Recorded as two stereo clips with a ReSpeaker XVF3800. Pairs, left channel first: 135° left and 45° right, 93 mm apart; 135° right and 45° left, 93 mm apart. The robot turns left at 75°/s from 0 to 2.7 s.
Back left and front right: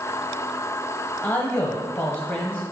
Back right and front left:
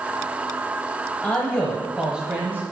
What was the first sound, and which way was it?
A man speaking, 175° left.